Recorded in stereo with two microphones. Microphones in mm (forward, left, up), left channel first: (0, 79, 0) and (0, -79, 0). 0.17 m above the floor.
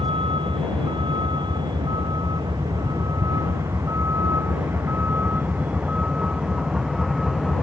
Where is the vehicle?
35° right (ahead or behind); by 7.6 s centre (ahead or behind).